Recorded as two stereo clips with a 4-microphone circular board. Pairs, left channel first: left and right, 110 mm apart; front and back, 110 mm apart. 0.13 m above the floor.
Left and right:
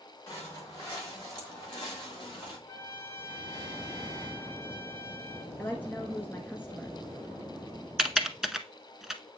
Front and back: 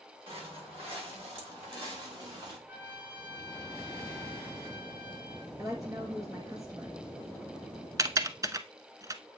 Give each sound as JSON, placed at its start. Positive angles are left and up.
{"t": 0.3, "sound": "footsteps", "azimuth_deg": 150, "distance_m": 6.5}
{"t": 2.7, "sound": "a trumpet", "azimuth_deg": 125, "distance_m": 2.0}
{"t": 5.6, "sound": "a woman speaking", "azimuth_deg": 150, "distance_m": 1.3}
{"t": 8.0, "sound": "typing on a keyboard", "azimuth_deg": -175, "distance_m": 0.7}